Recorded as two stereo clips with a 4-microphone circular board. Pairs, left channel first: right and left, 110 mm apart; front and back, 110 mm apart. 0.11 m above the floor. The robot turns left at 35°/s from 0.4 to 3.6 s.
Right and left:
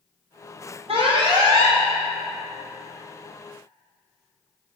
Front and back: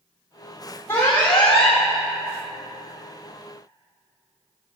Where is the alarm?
65° left, 3 m; by 1.8 s 35° left, 3 m.